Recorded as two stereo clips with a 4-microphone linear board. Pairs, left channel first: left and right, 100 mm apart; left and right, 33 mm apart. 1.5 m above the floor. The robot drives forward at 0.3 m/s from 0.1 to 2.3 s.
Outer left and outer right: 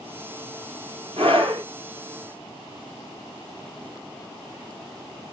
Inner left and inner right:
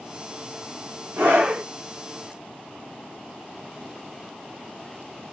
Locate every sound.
1.2 s a scream: 65° right (ahead or behind), 2 m